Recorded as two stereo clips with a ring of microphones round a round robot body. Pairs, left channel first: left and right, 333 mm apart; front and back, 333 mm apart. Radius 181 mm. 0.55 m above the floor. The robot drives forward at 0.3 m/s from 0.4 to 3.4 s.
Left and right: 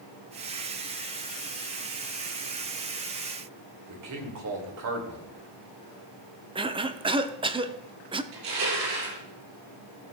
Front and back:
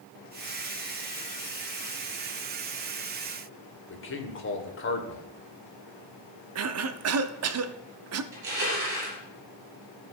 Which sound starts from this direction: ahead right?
A man speaking, at 3.9 s.